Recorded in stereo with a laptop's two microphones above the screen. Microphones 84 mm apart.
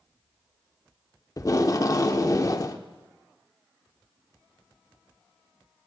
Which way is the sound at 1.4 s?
40° left (ahead or behind).